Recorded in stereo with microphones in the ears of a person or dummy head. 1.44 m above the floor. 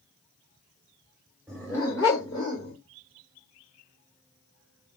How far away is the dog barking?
About 1.2 m.